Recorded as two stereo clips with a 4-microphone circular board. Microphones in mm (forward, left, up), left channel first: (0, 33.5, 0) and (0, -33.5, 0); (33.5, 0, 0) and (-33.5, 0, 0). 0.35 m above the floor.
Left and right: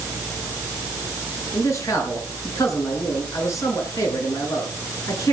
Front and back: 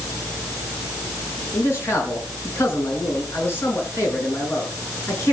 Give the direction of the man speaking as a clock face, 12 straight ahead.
10 o'clock.